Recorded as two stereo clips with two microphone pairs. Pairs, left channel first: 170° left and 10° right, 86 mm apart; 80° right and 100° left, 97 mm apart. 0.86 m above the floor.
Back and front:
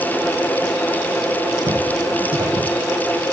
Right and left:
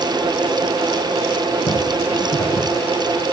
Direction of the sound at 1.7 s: 40° right.